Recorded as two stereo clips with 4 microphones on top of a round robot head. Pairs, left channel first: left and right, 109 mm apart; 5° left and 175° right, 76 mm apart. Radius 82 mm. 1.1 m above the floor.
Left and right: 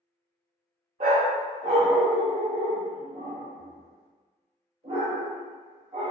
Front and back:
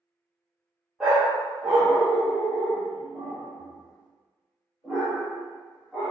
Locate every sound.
1.0 s a dog barking: 85° right, 0.5 m